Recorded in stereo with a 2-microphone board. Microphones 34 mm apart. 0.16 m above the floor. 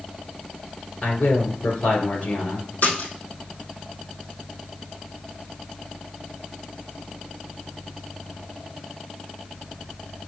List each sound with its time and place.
1.0 s a man speaking: 55° left (ahead or behind), 2.5 m
2.8 s a splash: 60° left (ahead or behind), 3.5 m